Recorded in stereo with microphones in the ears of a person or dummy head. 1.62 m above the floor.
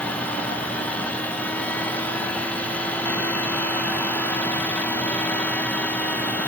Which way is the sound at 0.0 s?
10° left (ahead or behind).